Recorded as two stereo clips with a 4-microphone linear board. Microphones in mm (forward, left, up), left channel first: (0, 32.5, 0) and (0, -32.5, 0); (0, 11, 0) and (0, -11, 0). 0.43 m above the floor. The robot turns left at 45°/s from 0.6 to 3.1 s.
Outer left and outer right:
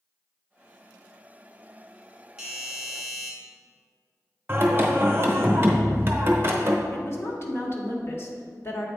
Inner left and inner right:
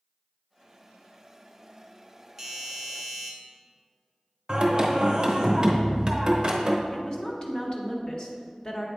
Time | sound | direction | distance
2.4 | a doorbell | 10° right (ahead or behind) | 1.3 m
4.5 | singing | 35° right (ahead or behind) | 0.9 m
6.9 | a woman speaking | 40° left (ahead or behind) | 1.1 m